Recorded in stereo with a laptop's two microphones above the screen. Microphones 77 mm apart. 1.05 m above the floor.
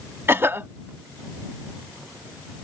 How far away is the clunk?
No clunk in this recording.